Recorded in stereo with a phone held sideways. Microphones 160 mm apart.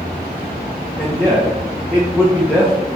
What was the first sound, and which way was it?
A man speaking, 5° right (ahead or behind).